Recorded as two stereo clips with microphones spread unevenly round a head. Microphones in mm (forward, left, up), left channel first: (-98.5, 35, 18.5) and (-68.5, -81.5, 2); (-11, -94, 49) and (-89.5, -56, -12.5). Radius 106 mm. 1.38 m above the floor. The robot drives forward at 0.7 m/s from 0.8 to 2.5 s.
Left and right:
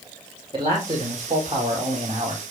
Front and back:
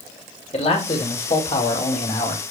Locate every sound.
0.5 s a man speaking: 5° right, 4.5 m